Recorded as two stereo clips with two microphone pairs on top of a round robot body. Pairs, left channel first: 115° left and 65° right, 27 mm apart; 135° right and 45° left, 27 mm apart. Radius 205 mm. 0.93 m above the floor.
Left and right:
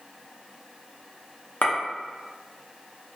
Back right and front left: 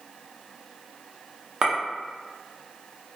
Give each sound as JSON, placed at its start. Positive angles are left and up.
{"t": 1.6, "sound": "a clink", "azimuth_deg": 100, "distance_m": 0.7}